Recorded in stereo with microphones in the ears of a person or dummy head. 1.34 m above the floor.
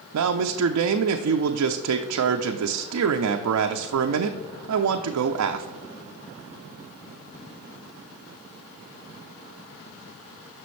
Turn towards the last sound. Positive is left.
turn(degrees=-85)